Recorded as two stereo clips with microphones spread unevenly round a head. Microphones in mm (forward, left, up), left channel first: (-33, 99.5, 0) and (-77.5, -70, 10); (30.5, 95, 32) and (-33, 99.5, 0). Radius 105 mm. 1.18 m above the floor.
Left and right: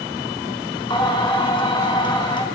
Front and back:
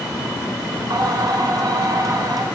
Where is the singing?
140° left, 3 m.